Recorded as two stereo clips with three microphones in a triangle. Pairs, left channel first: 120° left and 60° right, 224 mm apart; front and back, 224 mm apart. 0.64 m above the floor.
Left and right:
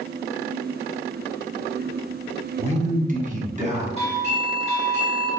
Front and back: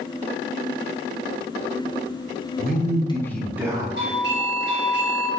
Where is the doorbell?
175° left, 1.6 m.